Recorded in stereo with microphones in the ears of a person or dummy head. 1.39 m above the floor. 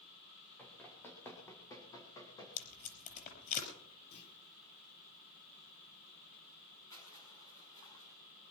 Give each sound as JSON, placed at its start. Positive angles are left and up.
{"t": 0.6, "sound": "running footsteps", "side_deg": 10, "distance_m": 4.0}
{"t": 2.6, "sound": "tape being pulled", "side_deg": 45, "distance_m": 5.0}
{"t": 4.1, "sound": "a clunk", "side_deg": 55, "distance_m": 5.0}
{"t": 6.9, "sound": "crushing", "side_deg": 20, "distance_m": 6.5}